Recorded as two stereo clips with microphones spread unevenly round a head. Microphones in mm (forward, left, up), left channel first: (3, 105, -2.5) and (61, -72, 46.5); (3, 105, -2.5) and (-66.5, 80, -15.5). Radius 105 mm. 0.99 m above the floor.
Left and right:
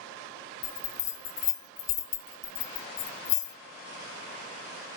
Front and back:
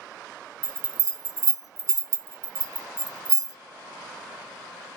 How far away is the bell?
About 0.6 m.